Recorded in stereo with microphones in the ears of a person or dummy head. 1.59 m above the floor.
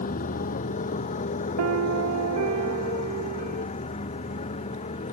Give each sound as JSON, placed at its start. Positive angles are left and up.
{"t": 0.0, "sound": "a motorcycle", "side_deg": 40}
{"t": 1.6, "sound": "a piano", "side_deg": -80}